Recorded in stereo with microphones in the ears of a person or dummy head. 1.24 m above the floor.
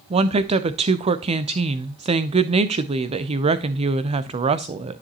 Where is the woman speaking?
35° right (ahead or behind), 0.6 m.